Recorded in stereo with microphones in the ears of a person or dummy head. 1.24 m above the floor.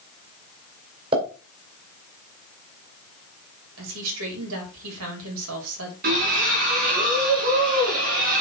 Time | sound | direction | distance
1.1 | a pop | 30° right (ahead or behind) | 4 m
3.8 | a woman speaking | 75° right (ahead or behind) | 4 m
6.0 | a splash | 50° right (ahead or behind) | 4.5 m